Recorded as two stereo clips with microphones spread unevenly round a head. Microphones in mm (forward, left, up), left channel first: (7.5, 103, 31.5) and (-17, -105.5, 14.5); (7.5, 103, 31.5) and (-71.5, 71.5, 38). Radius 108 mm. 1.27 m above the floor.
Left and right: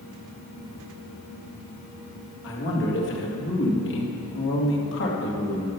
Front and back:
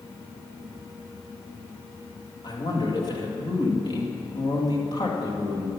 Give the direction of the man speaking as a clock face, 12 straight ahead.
10 o'clock.